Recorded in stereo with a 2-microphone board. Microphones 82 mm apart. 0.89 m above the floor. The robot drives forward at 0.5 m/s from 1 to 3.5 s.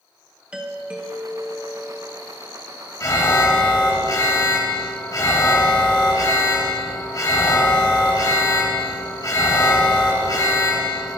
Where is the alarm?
40° left (ahead or behind), 1.2 m.